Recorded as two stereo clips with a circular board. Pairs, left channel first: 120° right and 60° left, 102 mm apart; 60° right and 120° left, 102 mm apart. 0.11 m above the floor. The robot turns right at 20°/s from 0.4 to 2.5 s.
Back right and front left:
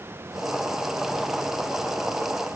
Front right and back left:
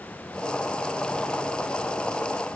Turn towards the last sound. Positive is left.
No sound to turn to.